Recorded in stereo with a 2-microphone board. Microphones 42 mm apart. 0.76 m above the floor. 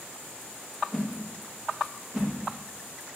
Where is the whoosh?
15° right (ahead or behind), 0.6 m.